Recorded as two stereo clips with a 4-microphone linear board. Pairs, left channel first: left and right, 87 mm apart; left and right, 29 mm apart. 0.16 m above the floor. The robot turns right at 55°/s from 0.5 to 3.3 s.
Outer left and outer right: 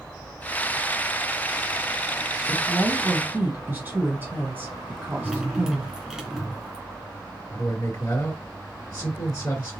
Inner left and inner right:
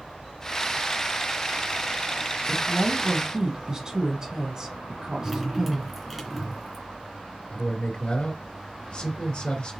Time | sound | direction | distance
2.5 | a woman speaking | 25° right (ahead or behind) | 1.5 m
5.2 | dripping | 10° right (ahead or behind) | 2 m
7.5 | a man speaking | 50° left (ahead or behind) | 2.5 m